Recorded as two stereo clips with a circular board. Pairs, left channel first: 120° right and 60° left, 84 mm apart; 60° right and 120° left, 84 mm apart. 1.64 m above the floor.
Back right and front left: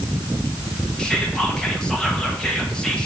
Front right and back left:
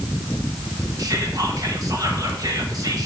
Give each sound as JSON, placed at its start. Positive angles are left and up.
{"t": 1.0, "sound": "whispering", "azimuth_deg": 160, "distance_m": 1.5}